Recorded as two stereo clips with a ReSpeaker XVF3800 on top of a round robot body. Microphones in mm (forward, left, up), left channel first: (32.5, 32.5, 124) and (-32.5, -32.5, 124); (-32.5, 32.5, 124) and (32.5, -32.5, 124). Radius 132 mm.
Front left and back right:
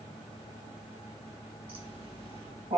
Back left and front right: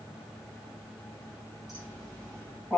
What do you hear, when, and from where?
1.7 s laughter: 130° right, 9.5 m; by 2.8 s 135° right, 9.5 m